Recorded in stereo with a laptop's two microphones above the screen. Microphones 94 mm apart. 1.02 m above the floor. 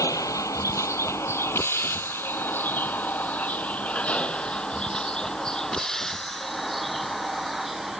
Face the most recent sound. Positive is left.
turn(degrees=0)  # may be behind; listen again after turning